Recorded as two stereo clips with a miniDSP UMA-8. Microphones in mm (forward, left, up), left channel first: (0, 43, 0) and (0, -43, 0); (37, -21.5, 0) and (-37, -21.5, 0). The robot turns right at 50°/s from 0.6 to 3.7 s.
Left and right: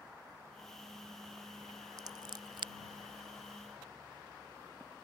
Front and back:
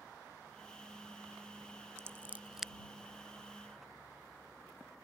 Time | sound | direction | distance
2.0 | scissors | 130° right | ?